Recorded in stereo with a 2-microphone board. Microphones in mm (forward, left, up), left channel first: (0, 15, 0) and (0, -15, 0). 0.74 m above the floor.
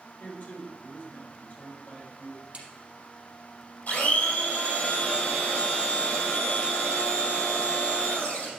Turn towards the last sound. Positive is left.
turn(degrees=65)  # may be behind; listen again after turning